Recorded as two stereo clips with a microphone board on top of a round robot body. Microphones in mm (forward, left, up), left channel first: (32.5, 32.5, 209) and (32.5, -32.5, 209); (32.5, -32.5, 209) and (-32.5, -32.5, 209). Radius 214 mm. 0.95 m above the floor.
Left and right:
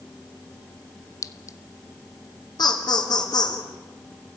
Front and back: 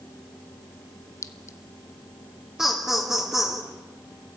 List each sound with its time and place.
1.2 s a clink: 45° left, 0.8 m
2.6 s laughter: 100° left, 3 m